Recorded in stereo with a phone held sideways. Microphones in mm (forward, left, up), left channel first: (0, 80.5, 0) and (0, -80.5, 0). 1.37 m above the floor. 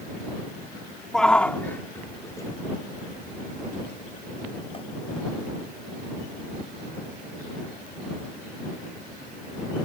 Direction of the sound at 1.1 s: 5° left (ahead or behind).